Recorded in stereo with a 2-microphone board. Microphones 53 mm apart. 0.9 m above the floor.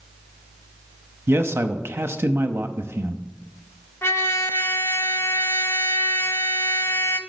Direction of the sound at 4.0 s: 55° left (ahead or behind).